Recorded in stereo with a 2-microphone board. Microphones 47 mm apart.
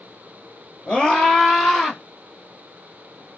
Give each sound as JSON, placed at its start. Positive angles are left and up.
{"t": 0.9, "sound": "a scream", "side_deg": 25, "distance_m": 2.0}